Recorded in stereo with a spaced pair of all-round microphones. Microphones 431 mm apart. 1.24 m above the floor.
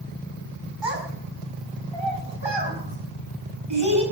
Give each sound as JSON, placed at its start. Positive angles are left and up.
{"t": 0.8, "sound": "a child speaking", "side_deg": -75, "distance_m": 6.0}